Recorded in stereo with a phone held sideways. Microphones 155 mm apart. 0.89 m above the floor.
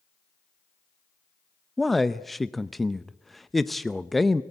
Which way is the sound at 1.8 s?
Centre (ahead or behind).